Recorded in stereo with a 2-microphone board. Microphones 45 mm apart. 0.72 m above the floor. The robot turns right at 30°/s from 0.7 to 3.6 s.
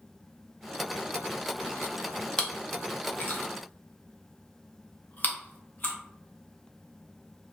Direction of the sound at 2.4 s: 25° left (ahead or behind).